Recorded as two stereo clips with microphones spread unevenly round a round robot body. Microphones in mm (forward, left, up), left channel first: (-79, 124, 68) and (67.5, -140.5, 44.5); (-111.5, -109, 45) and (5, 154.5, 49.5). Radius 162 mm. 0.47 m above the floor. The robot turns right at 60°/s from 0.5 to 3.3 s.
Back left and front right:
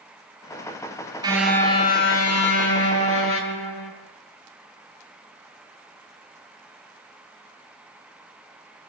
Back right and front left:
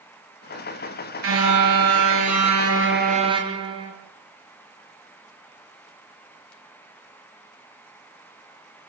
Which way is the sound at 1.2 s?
15° left.